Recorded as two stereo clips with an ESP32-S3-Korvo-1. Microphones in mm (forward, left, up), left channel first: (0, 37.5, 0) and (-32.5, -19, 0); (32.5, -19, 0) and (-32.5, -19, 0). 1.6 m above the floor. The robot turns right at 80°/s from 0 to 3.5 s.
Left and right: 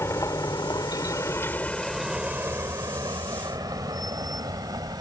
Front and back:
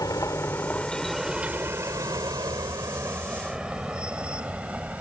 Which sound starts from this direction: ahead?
A vehicle, at 0.0 s.